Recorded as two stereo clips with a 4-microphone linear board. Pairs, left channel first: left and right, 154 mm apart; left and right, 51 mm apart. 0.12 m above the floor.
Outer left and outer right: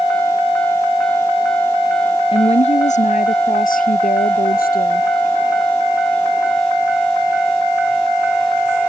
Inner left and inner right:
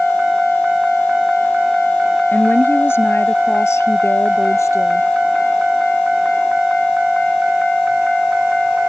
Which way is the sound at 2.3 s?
40° left (ahead or behind).